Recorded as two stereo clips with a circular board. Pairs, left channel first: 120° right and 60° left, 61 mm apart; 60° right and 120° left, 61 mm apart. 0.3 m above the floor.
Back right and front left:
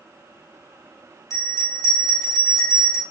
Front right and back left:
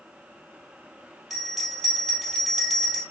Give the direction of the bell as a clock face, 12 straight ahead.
5 o'clock.